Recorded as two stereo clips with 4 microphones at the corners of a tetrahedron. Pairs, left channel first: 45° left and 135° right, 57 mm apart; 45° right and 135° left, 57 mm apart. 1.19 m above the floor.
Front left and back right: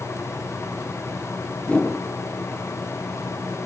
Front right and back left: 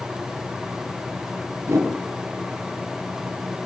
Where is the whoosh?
110° left, 2.0 m.